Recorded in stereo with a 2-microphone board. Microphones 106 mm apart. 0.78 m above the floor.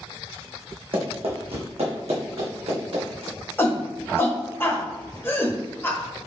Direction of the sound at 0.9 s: 60° right (ahead or behind).